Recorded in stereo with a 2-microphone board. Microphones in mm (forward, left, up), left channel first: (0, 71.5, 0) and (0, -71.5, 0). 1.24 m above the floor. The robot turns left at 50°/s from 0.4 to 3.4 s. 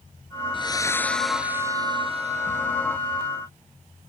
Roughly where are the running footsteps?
I don't hear running footsteps.